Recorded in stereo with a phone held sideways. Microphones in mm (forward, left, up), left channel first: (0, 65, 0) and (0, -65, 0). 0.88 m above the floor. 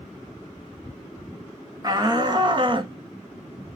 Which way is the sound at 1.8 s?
30° right (ahead or behind).